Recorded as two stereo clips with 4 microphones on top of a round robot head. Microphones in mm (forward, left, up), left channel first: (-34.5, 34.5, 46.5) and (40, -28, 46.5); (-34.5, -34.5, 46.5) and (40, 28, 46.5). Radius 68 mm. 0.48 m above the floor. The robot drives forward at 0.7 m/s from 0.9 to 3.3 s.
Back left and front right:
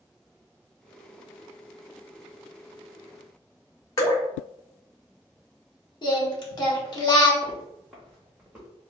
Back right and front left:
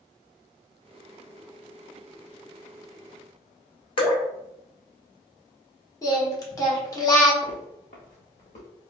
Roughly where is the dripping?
Behind.